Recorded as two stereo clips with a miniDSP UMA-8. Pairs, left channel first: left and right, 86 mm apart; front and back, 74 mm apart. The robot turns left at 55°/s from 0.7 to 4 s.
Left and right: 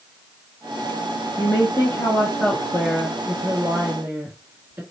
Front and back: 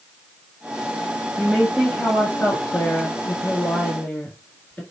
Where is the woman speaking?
90° left, 1.4 m; by 4.8 s 55° right, 1.4 m.